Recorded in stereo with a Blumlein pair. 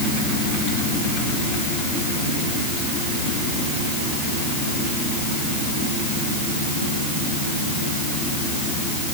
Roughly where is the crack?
I don't hear a crack.